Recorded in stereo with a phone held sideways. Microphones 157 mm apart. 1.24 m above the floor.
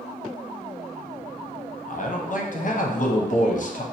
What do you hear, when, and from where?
1.9 s a man speaking: 55° left (ahead or behind), 0.7 m